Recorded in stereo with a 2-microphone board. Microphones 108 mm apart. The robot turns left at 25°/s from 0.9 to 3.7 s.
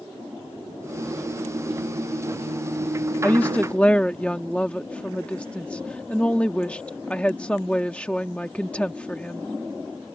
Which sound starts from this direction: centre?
A woman speaking, at 3.2 s.